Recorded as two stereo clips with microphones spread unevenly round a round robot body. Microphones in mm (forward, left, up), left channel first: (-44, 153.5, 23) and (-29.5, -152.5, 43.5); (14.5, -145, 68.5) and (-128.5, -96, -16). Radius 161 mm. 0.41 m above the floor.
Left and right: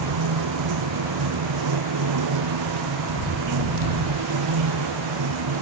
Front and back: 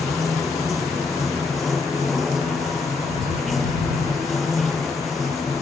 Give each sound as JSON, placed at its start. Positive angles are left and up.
{"t": 0.0, "sound": "running water", "azimuth_deg": -105}